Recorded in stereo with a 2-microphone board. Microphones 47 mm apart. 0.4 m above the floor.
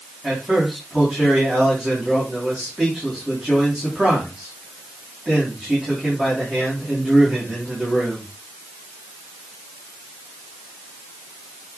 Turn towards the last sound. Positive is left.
turn(degrees=-15)  # may be behind; listen again after turning